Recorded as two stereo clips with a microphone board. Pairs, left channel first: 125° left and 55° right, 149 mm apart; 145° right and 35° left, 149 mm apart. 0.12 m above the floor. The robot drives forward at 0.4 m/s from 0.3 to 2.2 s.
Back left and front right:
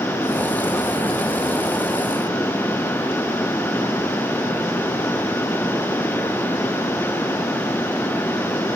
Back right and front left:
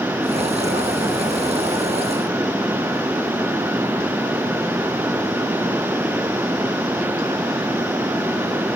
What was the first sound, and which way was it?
Only background noise.